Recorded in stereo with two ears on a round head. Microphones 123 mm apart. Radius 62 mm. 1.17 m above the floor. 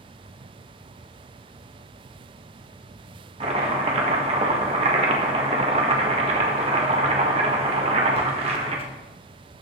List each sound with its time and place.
3.4 s chopping: 45° right (ahead or behind), 1.4 m